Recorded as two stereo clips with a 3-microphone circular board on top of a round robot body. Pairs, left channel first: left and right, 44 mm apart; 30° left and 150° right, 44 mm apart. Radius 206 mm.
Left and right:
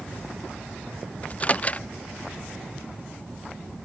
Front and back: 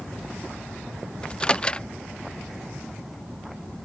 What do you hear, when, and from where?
1.2 s a microwave: 75° left